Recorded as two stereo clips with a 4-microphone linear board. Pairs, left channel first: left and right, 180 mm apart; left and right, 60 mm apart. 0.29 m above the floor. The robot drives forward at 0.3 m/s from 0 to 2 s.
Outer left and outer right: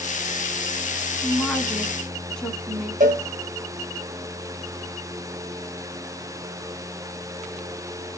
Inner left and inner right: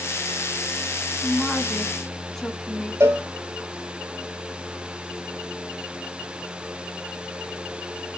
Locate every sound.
1.2 s a woman speaking: 5° left (ahead or behind), 2 m
3.0 s a cowbell: 50° right (ahead or behind), 1.6 m